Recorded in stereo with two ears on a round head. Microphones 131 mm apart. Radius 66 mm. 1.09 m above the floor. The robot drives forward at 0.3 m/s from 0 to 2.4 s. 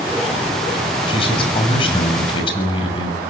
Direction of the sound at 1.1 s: 35° left (ahead or behind).